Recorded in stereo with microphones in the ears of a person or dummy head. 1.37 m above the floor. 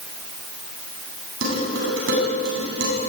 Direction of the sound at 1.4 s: 75° right (ahead or behind).